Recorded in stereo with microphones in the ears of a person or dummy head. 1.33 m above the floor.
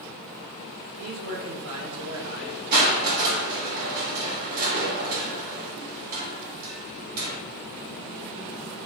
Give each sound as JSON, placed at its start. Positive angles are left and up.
{"t": 1.0, "sound": "a man speaking", "side_deg": -45, "distance_m": 2.5}
{"t": 2.7, "sound": "crushing", "side_deg": -40, "distance_m": 2.0}